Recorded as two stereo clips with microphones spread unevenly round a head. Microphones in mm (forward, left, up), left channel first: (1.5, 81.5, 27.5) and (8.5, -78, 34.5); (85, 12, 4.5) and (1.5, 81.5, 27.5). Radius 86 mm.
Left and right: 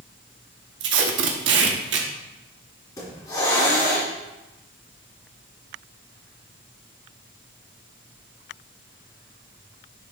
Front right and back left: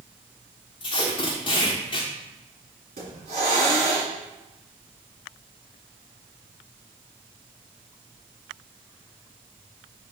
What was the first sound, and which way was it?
Tape being pulled, 105° right.